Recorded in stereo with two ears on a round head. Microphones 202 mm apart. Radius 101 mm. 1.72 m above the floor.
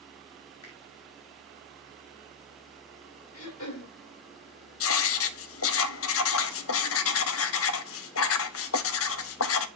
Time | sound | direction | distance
0.6 | a finger snap | 75° left (ahead or behind) | 4 m
3.3 | throat clearing | 70° left (ahead or behind) | 3.5 m
4.8 | writing | 65° left (ahead or behind) | 0.7 m